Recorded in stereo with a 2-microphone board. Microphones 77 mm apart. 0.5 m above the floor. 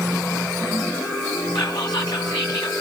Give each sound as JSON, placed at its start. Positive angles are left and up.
{"t": 1.6, "sound": "whispering", "side_deg": 65, "distance_m": 4.0}